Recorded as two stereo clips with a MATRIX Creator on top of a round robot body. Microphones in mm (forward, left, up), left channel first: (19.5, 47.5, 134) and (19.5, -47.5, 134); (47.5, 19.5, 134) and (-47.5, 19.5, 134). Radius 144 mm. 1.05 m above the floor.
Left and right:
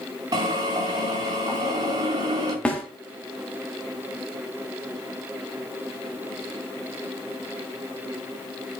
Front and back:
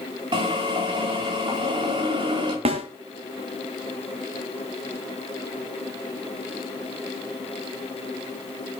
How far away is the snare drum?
About 1.4 m.